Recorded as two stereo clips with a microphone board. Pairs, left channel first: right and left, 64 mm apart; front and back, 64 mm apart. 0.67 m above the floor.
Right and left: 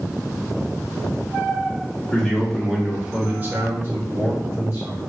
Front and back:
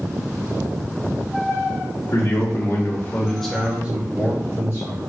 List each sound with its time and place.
2.1 s a man speaking: 10° right, 1.2 m; by 5.1 s 145° left, 1.6 m